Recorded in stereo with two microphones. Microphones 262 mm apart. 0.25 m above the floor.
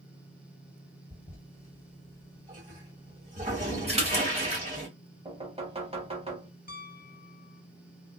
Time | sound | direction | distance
1.1 | a toilet flushing | 25° right (ahead or behind) | 2.0 m
3.9 | a splash | 25° right (ahead or behind) | 1.2 m
5.2 | knocking | 20° right (ahead or behind) | 0.9 m
6.7 | a piano | 35° left (ahead or behind) | 0.5 m